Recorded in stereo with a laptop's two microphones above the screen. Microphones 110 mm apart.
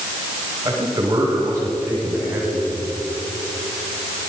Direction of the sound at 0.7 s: 30° right (ahead or behind).